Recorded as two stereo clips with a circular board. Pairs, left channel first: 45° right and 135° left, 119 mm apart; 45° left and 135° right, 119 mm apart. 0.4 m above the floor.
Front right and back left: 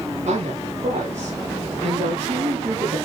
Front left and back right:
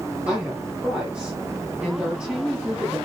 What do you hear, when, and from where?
0.3 s a woman speaking: 145° left, 9.5 m